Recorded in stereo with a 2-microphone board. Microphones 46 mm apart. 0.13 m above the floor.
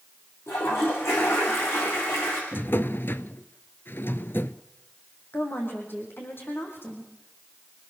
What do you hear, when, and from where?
0.5 s a toilet flushing: 65° left (ahead or behind), 7.5 m
2.5 s a drawer: 55° left (ahead or behind), 0.7 m
5.3 s a woman speaking: 50° left (ahead or behind), 6.5 m